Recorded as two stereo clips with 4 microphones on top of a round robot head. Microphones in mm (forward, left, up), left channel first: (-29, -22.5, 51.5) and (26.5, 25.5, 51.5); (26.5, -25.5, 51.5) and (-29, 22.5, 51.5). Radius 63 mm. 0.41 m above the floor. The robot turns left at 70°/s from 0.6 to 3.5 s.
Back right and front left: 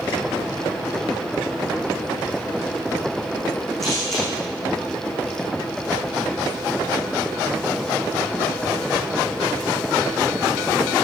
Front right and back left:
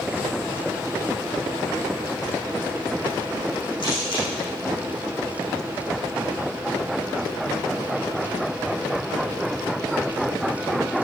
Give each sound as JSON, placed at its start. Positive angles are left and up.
{"t": 3.8, "sound": "a camera shutter", "azimuth_deg": -50, "distance_m": 8.5}